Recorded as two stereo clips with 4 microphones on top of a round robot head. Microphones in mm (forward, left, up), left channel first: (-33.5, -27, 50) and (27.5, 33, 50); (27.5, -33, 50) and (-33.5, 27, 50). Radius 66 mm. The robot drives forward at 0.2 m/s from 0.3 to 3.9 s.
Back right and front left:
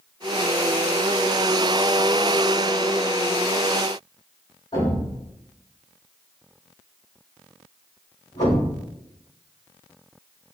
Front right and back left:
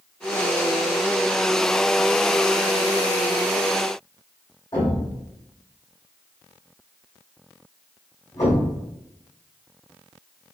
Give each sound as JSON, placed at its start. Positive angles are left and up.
{"t": 4.7, "sound": "a thud", "azimuth_deg": -90, "distance_m": 1.7}